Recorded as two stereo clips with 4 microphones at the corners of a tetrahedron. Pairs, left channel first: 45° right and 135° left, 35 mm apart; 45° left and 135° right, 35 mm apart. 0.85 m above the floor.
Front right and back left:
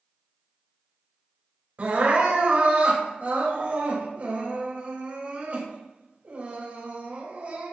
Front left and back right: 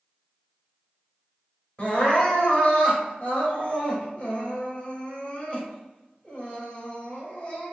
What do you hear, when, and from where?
1.8 s crying: 95° left, 3 m